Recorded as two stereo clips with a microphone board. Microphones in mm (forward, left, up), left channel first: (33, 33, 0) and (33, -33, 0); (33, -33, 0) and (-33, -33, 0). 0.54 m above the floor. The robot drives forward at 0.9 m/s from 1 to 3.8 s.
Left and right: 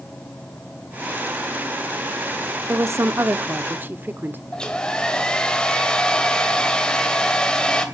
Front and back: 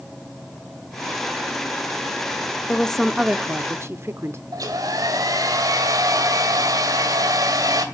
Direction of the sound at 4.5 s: 165° left.